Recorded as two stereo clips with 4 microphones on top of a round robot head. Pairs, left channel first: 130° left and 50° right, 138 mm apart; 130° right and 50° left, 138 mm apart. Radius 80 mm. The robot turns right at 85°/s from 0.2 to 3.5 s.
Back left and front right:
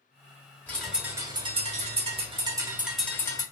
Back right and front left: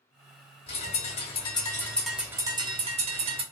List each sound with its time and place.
0.7 s a bird: 160° right, 1.1 m; by 3.4 s 80° left, 1.1 m